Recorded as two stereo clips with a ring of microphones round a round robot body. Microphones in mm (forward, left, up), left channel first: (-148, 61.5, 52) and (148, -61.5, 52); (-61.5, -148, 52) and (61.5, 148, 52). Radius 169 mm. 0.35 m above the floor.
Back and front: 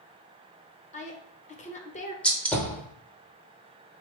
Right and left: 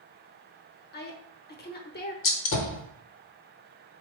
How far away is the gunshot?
About 0.9 m.